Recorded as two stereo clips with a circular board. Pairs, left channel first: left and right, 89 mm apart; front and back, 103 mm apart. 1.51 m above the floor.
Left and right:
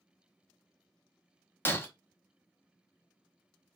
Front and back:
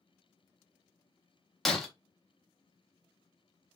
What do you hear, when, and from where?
1.6 s breaking glass: 80° left, 0.6 m